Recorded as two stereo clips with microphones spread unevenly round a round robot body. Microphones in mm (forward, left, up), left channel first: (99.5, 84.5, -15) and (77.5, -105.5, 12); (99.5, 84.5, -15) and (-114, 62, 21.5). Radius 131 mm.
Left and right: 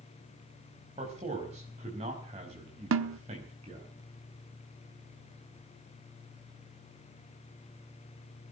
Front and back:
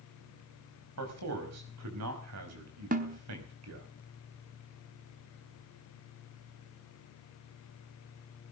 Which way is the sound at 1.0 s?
165° right.